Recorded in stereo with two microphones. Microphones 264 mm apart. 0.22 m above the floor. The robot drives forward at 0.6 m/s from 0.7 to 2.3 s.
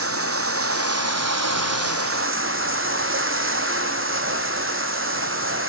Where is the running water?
60° right (ahead or behind), 0.9 m; by 5.7 s 55° right (ahead or behind), 0.9 m.